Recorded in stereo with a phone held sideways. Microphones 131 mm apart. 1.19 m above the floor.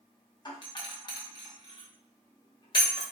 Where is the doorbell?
35° left (ahead or behind), 0.8 m.